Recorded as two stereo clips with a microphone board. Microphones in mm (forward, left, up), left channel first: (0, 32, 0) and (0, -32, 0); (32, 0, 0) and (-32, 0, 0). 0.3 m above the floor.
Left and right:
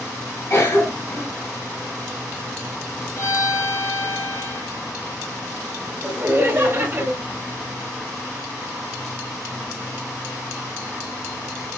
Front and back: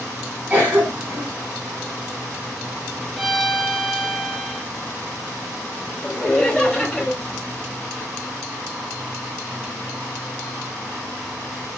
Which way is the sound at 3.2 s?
95° left.